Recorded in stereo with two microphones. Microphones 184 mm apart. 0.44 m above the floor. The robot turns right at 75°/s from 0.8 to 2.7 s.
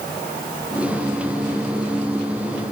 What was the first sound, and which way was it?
Only background noise.